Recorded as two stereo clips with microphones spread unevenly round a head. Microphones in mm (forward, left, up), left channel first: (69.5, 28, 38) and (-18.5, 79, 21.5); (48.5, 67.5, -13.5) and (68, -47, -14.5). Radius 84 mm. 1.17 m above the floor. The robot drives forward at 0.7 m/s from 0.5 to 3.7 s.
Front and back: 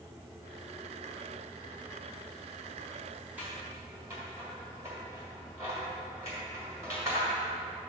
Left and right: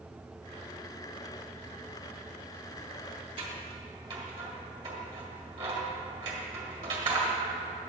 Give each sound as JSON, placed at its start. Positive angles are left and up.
{"t": 3.4, "sound": "scissors", "azimuth_deg": -125, "distance_m": 1.2}